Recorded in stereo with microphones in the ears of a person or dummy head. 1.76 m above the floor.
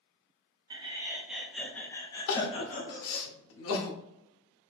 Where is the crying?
80° left, 0.7 m.